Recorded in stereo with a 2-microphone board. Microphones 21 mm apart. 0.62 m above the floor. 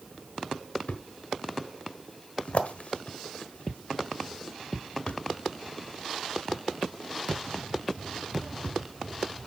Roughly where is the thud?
Left.